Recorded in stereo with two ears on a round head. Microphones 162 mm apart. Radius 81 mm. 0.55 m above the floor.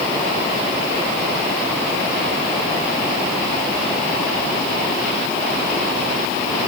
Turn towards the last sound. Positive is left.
No sound to turn to.